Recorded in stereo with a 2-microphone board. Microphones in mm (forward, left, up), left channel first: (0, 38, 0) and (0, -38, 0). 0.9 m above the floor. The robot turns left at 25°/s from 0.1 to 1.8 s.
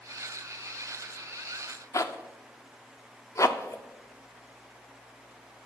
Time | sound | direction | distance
1.9 | a zipper | 45° left (ahead or behind) | 0.5 m